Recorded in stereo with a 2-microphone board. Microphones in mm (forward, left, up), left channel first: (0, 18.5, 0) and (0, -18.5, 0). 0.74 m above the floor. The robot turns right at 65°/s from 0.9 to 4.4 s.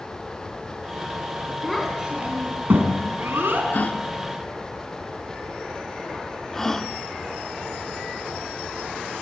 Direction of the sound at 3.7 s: 55° left (ahead or behind).